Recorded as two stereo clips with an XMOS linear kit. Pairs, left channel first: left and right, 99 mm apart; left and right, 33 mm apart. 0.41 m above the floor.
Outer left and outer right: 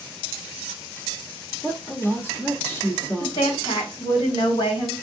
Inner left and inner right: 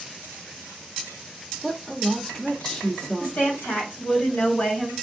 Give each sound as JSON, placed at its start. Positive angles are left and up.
{"t": 1.6, "sound": "a woman speaking", "side_deg": 20, "distance_m": 0.8}
{"t": 3.2, "sound": "a woman speaking", "side_deg": 60, "distance_m": 2.5}